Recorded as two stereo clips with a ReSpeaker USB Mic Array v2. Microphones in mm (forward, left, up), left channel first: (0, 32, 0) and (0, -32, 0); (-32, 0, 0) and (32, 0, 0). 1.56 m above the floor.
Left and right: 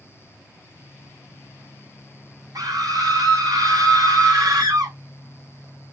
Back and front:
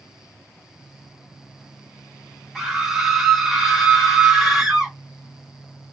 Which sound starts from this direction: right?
A scream, at 2.5 s.